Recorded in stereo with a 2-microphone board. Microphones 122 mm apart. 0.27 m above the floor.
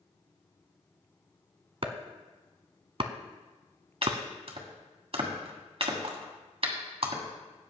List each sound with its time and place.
1.8 s chopping: 50° right (ahead or behind), 0.9 m
4.0 s chopping: 55° right (ahead or behind), 1.7 m